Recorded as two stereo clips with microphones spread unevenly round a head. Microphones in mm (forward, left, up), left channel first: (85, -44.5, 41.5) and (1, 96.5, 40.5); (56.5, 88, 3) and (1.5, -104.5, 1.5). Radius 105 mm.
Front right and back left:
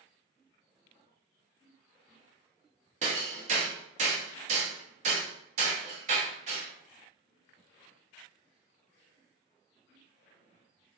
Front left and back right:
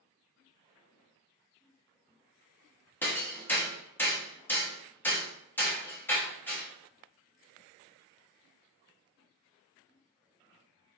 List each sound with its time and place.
3.0 s hammering: 150° left, 0.7 m